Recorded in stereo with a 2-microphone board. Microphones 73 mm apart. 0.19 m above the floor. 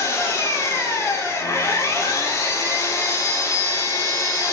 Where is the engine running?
50° left (ahead or behind), 2.5 m.